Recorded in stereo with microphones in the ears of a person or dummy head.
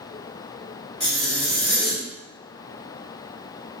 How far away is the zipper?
About 1.7 m.